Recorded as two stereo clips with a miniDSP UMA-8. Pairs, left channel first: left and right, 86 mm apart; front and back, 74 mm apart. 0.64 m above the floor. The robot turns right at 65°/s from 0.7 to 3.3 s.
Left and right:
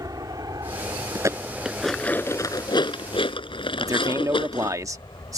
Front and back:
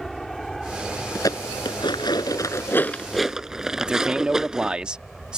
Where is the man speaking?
110° right.